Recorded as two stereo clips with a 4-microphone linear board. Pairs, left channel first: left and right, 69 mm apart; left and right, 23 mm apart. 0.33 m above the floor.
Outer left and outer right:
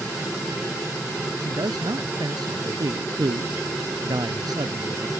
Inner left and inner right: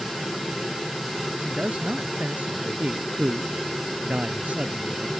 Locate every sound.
1.4 s a man speaking: 80° right